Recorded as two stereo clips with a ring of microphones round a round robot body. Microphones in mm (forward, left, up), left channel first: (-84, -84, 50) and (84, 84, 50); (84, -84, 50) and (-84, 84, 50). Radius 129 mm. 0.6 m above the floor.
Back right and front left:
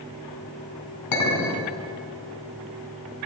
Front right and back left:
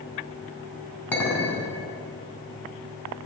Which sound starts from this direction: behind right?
A clink, at 1.1 s.